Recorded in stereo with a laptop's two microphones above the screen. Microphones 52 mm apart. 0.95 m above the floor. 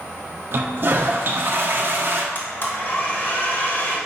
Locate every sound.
0.5 s a toilet flushing: 45° right (ahead or behind), 0.5 m
2.4 s a blender: 45° left (ahead or behind), 1.1 m